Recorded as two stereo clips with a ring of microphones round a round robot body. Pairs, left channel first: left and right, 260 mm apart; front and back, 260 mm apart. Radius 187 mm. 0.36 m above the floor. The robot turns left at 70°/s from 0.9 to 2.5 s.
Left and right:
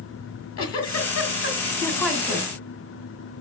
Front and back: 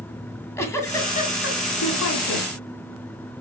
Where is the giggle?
80° left, 1.9 m; by 2.5 s 30° right, 1.9 m.